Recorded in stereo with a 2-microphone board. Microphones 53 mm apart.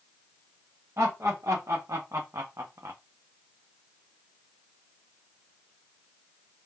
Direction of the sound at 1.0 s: 70° right (ahead or behind).